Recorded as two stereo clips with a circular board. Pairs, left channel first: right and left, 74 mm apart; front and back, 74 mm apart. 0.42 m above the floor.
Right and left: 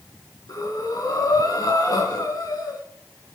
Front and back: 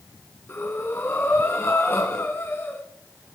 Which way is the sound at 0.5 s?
55° right.